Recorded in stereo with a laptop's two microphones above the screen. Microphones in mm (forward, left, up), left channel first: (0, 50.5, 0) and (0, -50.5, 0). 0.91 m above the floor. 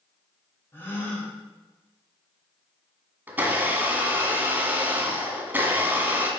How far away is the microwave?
I don't hear a microwave.